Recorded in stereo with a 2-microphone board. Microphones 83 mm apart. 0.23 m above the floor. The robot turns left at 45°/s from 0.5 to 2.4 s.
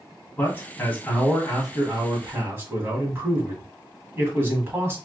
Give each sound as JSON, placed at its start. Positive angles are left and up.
{"t": 0.4, "sound": "a man speaking", "azimuth_deg": 45, "distance_m": 1.5}